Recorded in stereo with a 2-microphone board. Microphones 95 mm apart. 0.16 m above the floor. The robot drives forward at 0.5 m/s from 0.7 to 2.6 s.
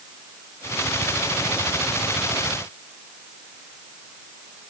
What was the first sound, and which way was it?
Only background noise.